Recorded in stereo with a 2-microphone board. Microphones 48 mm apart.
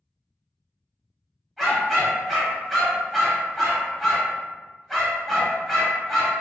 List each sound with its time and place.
1.6 s a dog barking: centre (ahead or behind), 0.9 m